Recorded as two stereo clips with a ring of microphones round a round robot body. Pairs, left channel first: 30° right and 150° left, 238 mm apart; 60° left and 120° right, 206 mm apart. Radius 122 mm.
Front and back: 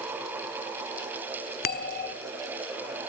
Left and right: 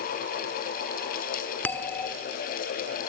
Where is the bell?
15° right, 1.5 m.